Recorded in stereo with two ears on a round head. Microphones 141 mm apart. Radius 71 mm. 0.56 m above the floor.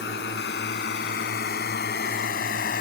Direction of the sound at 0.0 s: 80° left.